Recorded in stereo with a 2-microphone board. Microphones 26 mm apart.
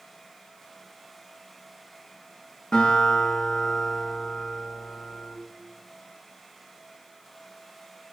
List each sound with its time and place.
2.7 s a guitar: 35° left (ahead or behind), 8 m